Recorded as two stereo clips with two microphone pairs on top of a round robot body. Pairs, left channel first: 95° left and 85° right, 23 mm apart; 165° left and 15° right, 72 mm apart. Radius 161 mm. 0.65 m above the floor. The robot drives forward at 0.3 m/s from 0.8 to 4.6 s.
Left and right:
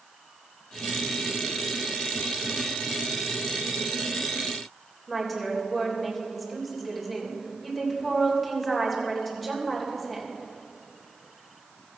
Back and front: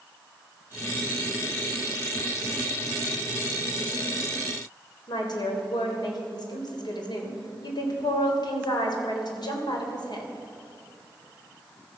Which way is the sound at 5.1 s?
175° left.